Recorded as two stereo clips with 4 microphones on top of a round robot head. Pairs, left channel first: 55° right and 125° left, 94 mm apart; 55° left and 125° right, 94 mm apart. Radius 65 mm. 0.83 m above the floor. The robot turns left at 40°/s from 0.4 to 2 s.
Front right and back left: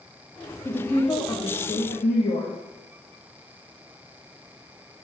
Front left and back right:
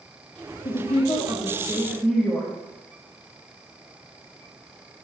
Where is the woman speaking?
25° left, 1.1 m; by 2.5 s 25° right, 1.1 m.